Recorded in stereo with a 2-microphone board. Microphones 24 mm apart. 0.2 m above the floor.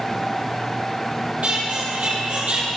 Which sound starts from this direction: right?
A squeak, at 1.4 s.